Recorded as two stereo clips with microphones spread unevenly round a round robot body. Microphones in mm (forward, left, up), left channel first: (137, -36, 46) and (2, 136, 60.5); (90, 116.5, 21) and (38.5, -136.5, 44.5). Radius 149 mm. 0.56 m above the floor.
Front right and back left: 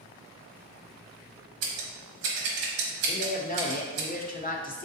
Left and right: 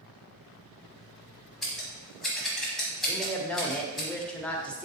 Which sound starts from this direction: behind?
Scissors, at 1.6 s.